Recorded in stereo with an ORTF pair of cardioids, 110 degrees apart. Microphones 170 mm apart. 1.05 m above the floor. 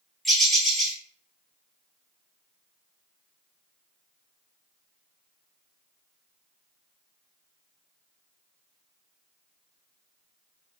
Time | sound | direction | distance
0.2 | a bird | straight ahead | 1.2 m